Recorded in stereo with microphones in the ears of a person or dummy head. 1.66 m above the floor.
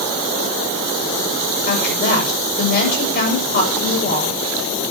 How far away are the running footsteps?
No running footsteps in this recording.